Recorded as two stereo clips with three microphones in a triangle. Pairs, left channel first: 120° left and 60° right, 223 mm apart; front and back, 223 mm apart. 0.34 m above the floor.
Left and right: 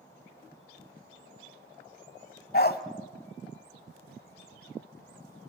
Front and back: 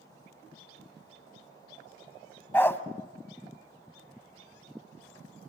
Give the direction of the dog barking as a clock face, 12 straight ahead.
9 o'clock.